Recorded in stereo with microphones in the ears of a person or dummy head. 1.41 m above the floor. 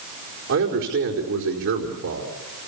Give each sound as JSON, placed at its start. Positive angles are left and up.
{"t": 0.5, "sound": "a man speaking", "side_deg": -75, "distance_m": 4.5}